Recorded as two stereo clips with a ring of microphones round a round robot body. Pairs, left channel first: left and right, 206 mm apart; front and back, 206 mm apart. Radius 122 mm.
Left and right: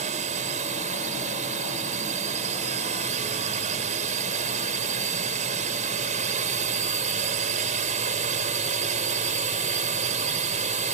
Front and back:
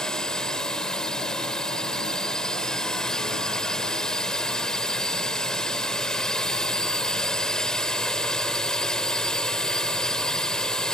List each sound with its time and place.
0.0 s a drone: 85° right